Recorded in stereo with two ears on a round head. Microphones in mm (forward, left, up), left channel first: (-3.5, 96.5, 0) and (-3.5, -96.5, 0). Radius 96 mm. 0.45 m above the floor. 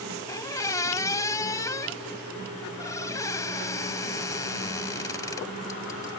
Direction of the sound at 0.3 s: 15° left (ahead or behind).